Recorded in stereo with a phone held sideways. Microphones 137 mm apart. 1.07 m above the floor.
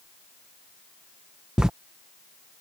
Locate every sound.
1.6 s writing: 5° right (ahead or behind)